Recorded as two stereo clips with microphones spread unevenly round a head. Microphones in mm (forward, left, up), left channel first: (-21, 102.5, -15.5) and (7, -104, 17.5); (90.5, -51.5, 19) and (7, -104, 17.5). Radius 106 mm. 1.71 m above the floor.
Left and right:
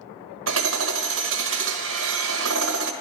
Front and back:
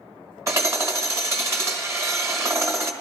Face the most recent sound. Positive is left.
turn(degrees=-90)